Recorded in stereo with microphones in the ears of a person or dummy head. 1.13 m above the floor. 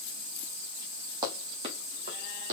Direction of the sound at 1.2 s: 25° right (ahead or behind).